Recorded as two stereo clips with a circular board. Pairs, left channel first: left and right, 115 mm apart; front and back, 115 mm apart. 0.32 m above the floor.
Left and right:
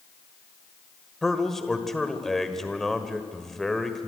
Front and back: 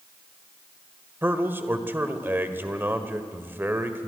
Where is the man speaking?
170° left, 1.5 m.